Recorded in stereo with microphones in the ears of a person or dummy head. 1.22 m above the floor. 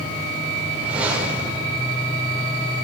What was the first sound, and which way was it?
A whoosh, 10° right (ahead or behind).